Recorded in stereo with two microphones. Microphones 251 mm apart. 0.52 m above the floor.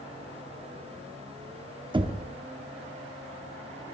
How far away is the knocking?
About 0.7 m.